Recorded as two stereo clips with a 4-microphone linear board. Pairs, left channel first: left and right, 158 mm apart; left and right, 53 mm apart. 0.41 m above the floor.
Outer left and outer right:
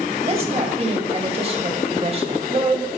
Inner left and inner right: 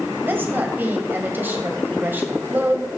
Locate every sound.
0.2 s a woman speaking: 40° right (ahead or behind), 2 m